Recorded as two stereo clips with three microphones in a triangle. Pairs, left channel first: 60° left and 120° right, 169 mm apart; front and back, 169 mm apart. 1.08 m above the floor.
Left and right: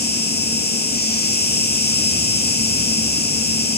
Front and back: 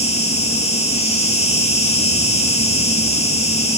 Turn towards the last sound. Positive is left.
turn(degrees=50)